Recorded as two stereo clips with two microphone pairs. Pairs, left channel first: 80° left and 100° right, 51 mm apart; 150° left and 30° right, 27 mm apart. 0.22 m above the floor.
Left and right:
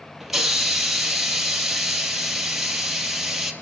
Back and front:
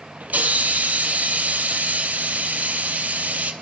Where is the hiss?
15° right, 2.5 m.